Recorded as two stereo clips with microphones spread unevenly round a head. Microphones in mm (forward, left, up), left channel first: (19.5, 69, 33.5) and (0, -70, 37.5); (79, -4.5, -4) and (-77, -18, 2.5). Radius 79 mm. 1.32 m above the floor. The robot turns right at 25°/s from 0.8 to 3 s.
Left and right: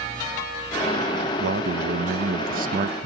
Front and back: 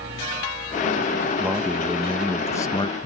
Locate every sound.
1.4 s a man speaking: 95° right; by 3.1 s 55° right